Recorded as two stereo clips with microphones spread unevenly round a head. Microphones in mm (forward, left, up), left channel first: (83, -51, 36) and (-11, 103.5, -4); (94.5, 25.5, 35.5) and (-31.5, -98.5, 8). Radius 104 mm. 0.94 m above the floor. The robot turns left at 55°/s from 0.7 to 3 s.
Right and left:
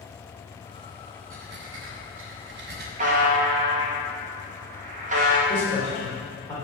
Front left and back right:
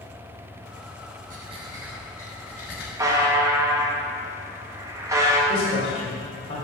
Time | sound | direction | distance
1.3 | breathing | 170° left | 1.3 m
3.0 | a buzzer | 155° left | 1.5 m
5.5 | a man speaking | 20° left | 3.5 m